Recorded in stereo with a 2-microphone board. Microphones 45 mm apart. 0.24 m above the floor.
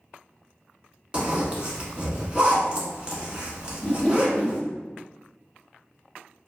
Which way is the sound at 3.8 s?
15° left (ahead or behind).